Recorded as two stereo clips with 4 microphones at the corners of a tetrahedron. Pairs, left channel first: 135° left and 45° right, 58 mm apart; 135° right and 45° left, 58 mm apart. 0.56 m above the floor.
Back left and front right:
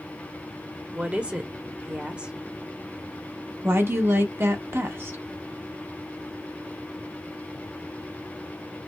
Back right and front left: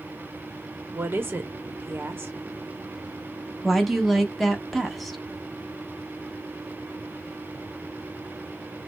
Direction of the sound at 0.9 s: 15° left.